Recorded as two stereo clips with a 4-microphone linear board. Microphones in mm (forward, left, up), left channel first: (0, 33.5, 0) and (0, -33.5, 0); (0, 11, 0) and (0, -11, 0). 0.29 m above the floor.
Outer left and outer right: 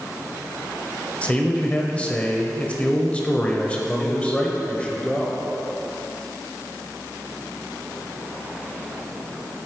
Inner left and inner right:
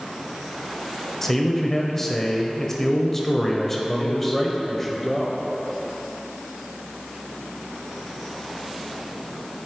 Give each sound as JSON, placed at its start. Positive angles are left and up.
{"t": 1.2, "sound": "a man speaking", "side_deg": 20, "distance_m": 0.9}
{"t": 4.0, "sound": "a man speaking", "side_deg": 15, "distance_m": 1.0}